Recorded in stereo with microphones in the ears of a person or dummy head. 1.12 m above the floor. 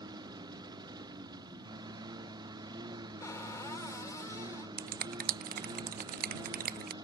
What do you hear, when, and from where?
0.0 s a lawn mower: 15° right (ahead or behind)
3.2 s a cupboard door: 10° left (ahead or behind)
4.8 s a finger snap: 50° right (ahead or behind)